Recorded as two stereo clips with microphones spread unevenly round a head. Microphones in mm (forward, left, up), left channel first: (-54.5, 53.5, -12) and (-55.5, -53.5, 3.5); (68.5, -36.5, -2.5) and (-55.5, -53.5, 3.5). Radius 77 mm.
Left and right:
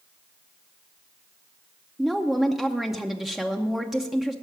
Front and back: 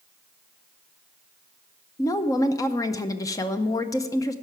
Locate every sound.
2.0 s a woman speaking: 10° left, 0.6 m